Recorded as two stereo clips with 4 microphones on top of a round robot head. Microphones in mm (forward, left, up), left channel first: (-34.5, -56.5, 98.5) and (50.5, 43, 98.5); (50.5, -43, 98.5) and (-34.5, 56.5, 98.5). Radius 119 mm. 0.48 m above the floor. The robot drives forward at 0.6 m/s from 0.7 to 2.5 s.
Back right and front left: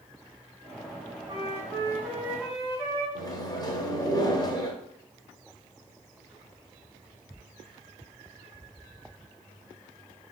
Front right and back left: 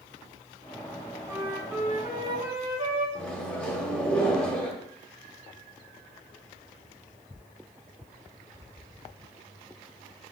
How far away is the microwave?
About 0.6 m.